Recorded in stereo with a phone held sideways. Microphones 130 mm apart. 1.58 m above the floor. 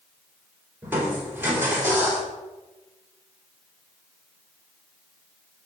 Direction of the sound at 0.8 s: 15° right (ahead or behind).